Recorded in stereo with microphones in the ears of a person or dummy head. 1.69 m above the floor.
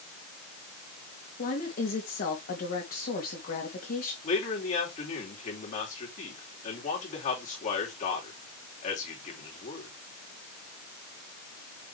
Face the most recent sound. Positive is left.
turn(degrees=45)  # may be behind; listen again after turning